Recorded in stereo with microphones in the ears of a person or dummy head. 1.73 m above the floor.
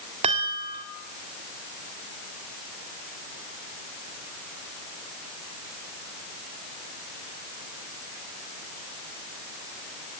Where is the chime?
25° right (ahead or behind), 1.7 m.